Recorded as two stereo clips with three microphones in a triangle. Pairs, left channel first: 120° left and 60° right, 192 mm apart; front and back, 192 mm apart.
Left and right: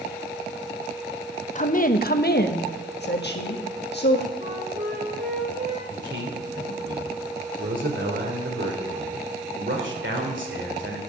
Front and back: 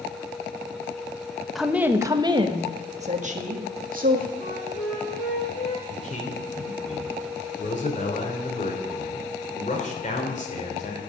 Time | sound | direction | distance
1.6 | a woman speaking | 90° left | 0.9 m
4.4 | a flute | 20° right | 3.5 m
5.9 | a man speaking | 50° right | 3 m